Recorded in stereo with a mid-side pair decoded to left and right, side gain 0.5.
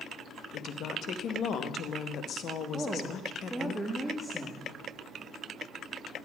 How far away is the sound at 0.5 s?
About 0.9 m.